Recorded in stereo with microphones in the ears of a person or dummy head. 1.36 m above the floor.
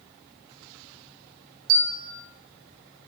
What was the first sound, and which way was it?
A bell, 55° right (ahead or behind).